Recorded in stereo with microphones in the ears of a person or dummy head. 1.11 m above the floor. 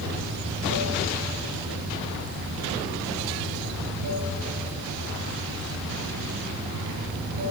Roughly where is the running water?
Right.